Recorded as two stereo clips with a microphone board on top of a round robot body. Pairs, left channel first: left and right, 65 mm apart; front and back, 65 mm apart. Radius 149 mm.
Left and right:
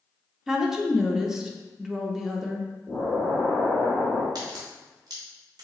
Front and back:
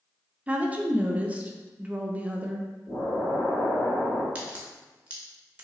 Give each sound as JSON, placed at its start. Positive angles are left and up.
{"t": 0.5, "sound": "a woman speaking", "azimuth_deg": -160, "distance_m": 0.7}
{"t": 2.9, "sound": "an explosion", "azimuth_deg": 20, "distance_m": 1.6}
{"t": 4.3, "sound": "a crack", "azimuth_deg": -110, "distance_m": 0.6}